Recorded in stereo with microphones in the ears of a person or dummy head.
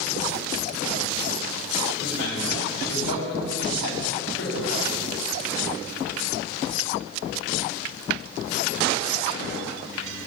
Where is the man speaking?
75° left (ahead or behind), 3.5 m.